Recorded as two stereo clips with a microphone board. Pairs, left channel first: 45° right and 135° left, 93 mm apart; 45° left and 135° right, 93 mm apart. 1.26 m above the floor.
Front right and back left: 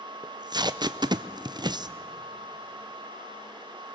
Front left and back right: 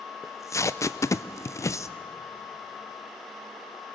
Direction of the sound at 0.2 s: 100° left.